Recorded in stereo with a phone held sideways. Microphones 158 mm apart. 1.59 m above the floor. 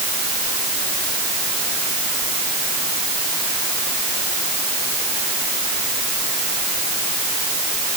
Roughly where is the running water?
I don't hear running water.